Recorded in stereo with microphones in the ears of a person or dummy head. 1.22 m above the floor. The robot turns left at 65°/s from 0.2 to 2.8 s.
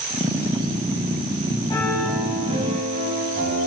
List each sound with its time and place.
1.7 s a piano: 20° left, 9.5 m; by 3.7 s 50° right, 9.5 m